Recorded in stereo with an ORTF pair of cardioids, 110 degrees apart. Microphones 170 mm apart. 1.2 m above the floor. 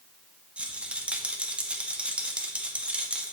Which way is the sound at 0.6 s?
5° right.